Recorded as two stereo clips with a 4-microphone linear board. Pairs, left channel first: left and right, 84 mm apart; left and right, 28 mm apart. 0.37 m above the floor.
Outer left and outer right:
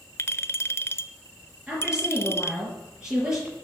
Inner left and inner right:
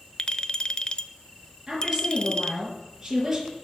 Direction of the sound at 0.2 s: 35° left (ahead or behind).